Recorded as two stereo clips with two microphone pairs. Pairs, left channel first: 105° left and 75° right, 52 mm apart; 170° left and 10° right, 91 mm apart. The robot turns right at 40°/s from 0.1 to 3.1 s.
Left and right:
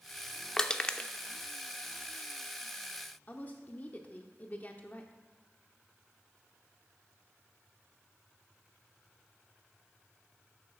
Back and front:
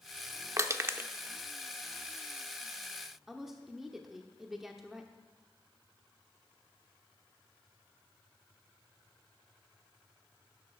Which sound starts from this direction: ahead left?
Crushing, at 0.6 s.